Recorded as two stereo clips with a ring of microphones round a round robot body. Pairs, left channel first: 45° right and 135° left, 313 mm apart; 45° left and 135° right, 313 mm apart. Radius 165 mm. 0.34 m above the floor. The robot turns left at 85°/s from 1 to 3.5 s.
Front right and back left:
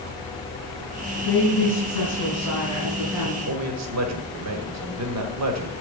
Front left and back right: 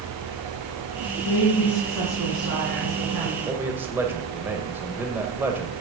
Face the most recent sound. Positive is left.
turn(degrees=140)